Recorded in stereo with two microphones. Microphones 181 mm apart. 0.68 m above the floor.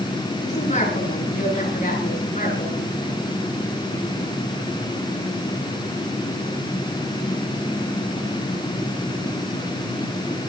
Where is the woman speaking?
40° left (ahead or behind), 8.5 m; by 2.9 s 45° left (ahead or behind), 11.5 m.